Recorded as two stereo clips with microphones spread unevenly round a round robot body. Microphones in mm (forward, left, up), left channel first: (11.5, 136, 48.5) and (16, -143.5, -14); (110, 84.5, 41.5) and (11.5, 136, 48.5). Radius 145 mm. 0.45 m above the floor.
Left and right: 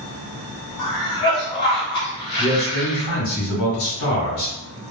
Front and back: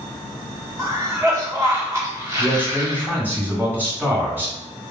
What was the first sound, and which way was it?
A cough, 120° left.